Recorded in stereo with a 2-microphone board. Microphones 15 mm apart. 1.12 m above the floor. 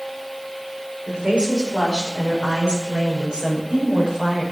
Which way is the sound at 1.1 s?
80° right.